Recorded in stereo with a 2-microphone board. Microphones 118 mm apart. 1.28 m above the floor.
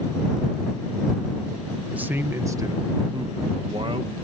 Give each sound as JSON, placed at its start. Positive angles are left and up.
{"t": 1.9, "sound": "a man speaking", "side_deg": -10}